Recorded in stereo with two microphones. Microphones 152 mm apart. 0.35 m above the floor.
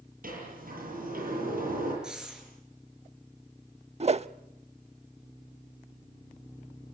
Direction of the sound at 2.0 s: 5° right (ahead or behind).